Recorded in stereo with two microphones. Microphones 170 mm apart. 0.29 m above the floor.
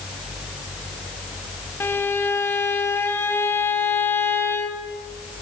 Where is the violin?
15° left (ahead or behind), 0.6 m.